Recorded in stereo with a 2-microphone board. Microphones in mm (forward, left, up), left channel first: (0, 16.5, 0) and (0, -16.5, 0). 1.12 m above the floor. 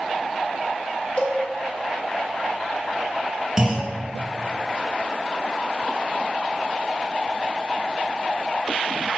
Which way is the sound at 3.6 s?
15° right (ahead or behind).